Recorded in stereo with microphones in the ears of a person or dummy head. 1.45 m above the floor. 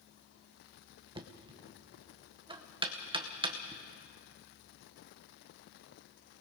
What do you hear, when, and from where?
1.1 s knocking: 25° right (ahead or behind), 1.0 m